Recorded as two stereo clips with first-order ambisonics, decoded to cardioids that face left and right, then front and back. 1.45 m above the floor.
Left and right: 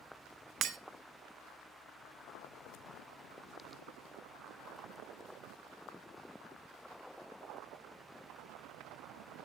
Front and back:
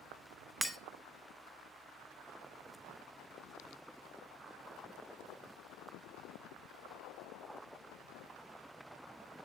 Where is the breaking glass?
90° right, 0.8 m.